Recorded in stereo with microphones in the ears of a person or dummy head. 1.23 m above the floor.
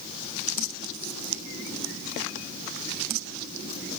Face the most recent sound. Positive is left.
No sound to turn to.